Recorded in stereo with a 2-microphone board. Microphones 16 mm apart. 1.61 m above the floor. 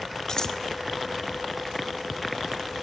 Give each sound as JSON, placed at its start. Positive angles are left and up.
{"t": 0.3, "sound": "scissors", "side_deg": 45, "distance_m": 1.4}